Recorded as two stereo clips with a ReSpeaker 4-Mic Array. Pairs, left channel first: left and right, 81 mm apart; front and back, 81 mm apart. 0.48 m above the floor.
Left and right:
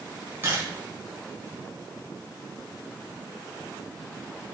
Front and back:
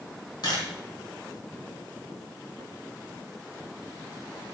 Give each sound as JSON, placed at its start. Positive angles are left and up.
{"t": 0.4, "sound": "a camera shutter", "azimuth_deg": -25, "distance_m": 3.5}